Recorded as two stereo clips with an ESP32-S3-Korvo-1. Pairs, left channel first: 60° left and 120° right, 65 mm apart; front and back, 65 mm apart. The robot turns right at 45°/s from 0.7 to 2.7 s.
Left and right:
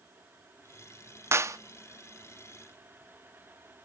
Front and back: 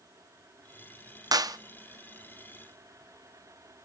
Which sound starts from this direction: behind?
A clap, at 1.3 s.